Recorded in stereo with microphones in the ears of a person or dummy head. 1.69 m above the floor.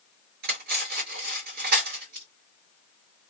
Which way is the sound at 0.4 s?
60° right (ahead or behind).